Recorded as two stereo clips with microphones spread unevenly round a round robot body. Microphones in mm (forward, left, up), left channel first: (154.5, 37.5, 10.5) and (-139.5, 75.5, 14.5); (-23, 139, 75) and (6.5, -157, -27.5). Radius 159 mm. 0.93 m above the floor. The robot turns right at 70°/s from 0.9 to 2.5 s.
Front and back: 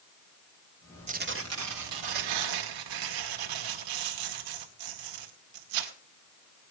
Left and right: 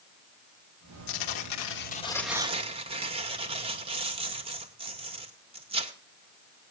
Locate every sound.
1.1 s tearing paper: 105° left, 1.9 m; by 5.9 s 155° right, 1.9 m